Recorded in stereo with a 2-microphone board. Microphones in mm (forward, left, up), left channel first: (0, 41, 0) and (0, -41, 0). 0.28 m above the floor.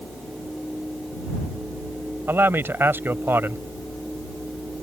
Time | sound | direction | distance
2.3 | a man speaking | 30° right (ahead or behind) | ?